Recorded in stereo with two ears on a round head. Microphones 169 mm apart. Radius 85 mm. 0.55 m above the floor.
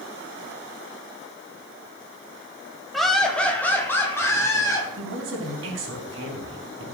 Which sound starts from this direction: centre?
Laughter, at 2.9 s.